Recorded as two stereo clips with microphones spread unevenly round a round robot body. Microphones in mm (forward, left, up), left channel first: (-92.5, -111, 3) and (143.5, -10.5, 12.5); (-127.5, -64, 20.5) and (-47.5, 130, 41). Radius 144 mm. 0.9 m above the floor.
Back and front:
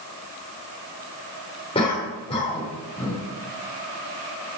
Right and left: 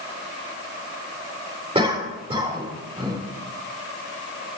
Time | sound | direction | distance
1.8 | a cough | 130° left | 3.5 m